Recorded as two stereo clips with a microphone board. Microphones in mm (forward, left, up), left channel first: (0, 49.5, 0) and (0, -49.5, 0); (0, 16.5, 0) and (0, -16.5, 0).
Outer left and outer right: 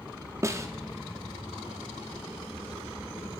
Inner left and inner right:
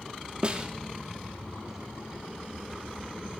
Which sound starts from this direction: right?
A snare drum, at 0.4 s.